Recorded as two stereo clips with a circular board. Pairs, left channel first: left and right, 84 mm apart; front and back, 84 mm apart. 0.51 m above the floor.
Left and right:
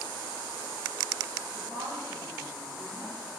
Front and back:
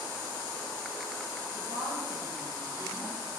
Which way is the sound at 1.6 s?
150° left.